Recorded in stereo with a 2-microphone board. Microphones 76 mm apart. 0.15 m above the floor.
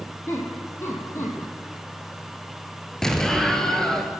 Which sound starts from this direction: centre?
An explosion, at 3.0 s.